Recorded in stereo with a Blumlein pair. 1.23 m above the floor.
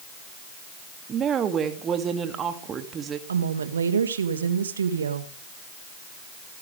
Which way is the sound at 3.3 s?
70° right.